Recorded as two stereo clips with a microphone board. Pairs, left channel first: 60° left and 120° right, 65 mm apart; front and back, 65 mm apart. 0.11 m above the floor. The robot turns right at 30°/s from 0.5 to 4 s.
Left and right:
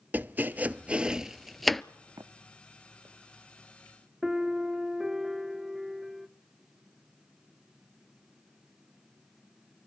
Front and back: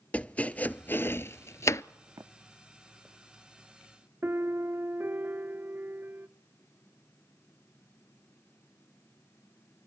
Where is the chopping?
65° right, 0.5 m; by 1.8 s 25° right, 0.5 m.